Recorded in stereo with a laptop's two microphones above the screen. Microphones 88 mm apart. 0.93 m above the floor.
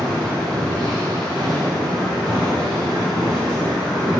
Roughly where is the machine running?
Centre.